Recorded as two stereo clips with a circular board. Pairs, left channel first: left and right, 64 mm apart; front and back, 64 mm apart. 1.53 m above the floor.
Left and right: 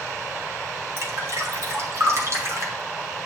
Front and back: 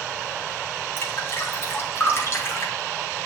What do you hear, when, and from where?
1.0 s dripping: 50° right, 3 m